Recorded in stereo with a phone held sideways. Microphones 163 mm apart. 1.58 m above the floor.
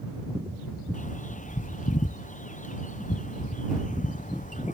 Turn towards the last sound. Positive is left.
turn(degrees=50)  # may be behind; listen again after turning